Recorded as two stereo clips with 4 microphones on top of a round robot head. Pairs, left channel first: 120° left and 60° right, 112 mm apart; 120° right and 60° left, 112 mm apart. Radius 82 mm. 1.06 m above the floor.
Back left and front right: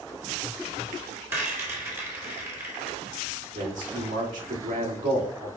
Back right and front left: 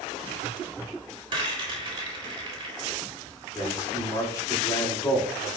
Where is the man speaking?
60° right, 3 m.